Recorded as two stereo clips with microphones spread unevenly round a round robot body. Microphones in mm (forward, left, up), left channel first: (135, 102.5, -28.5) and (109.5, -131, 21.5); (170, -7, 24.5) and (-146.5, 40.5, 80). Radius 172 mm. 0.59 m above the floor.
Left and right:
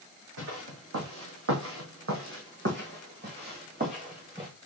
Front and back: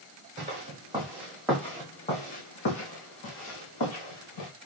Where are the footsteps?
125° right, 2 m; by 4.5 s 40° right, 3 m.